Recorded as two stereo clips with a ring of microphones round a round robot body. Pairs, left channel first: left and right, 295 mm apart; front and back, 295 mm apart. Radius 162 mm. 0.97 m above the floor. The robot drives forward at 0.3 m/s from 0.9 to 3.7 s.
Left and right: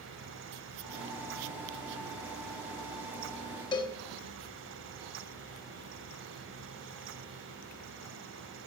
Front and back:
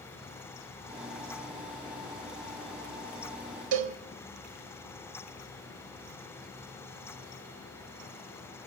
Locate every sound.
3.7 s a cowbell: 165° left, 1.0 m